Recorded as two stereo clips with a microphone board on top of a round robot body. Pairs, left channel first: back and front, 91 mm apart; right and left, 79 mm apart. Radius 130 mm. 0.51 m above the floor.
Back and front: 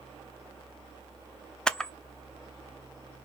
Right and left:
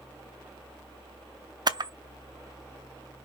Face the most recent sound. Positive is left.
turn(degrees=100)